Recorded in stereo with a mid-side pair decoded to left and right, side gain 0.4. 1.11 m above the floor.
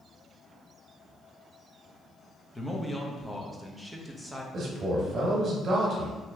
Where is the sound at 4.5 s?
60° right, 1.3 m.